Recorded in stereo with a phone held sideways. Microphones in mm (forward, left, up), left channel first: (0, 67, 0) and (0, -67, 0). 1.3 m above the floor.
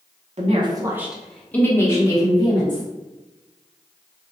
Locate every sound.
0.4 s a woman speaking: 55° right (ahead or behind), 0.6 m; by 2.8 s 35° left (ahead or behind), 1.5 m